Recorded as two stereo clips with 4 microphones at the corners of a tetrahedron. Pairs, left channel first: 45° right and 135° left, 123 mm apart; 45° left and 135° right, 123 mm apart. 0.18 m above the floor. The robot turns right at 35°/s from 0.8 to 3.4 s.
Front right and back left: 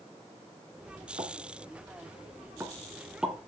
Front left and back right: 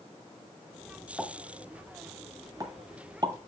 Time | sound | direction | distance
1.2 | a pop | 140° left | 1.9 m